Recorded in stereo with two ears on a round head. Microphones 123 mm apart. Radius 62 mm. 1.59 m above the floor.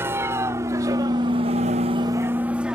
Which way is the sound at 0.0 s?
20° right (ahead or behind).